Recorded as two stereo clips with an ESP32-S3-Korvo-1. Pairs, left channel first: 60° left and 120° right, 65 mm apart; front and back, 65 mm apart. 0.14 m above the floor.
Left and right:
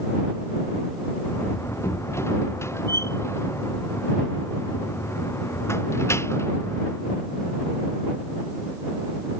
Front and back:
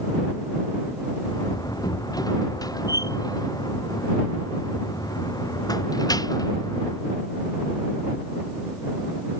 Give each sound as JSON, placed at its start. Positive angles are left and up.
{"t": 1.2, "sound": "a door slam", "azimuth_deg": 15}